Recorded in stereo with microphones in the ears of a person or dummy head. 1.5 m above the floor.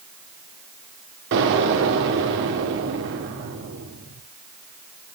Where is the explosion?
65° right (ahead or behind), 2.5 m.